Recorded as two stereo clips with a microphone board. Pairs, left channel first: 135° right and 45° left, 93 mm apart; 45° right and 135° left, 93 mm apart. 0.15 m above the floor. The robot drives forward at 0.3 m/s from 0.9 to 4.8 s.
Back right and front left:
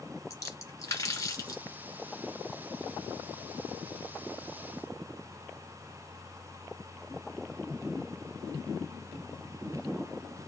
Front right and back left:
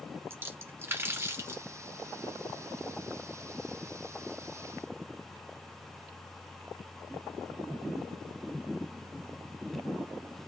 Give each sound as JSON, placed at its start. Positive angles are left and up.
{"t": 0.3, "sound": "a splash", "azimuth_deg": -175, "distance_m": 1.5}